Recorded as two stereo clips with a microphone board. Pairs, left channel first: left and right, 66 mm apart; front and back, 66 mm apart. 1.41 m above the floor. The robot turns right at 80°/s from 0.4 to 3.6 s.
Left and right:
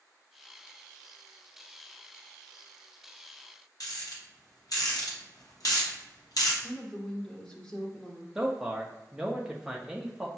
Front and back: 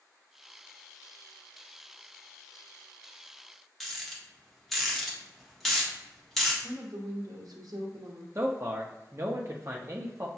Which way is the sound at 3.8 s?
90° left.